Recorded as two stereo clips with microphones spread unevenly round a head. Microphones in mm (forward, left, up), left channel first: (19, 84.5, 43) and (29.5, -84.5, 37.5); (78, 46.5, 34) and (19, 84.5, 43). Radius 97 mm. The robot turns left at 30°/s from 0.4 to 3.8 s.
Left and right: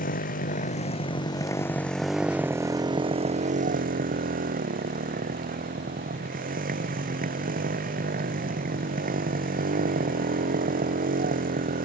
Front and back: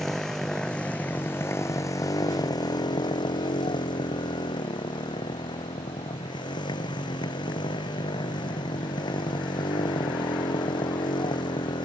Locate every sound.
0.0 s a motorcycle: 55° left; by 11.8 s 50° right